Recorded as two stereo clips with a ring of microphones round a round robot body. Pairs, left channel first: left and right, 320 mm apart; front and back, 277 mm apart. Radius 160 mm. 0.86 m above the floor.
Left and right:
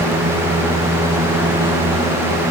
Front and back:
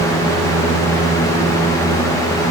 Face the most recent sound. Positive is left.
No sound to turn to.